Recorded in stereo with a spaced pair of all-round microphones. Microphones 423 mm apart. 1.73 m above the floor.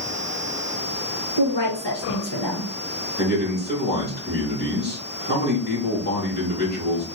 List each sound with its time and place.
1.4 s a woman speaking: 70° left (ahead or behind), 1.8 m
3.2 s a man speaking: 20° left (ahead or behind), 3 m